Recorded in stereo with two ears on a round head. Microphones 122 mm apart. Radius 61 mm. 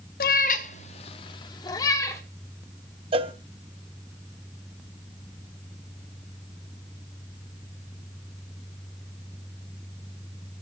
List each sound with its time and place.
0.2 s a cat meowing: 75° left (ahead or behind), 1.0 m; by 2.2 s 20° left (ahead or behind), 1.8 m
3.1 s a cowbell: 40° right (ahead or behind), 1.0 m